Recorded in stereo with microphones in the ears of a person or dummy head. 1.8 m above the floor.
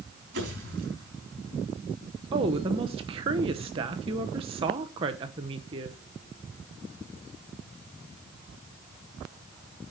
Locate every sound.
0.3 s a pop: 55° right (ahead or behind), 4.5 m
2.3 s a woman speaking: 30° right (ahead or behind), 1.0 m